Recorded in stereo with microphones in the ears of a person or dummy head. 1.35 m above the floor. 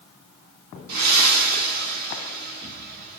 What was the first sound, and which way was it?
Breathing, 55° right (ahead or behind).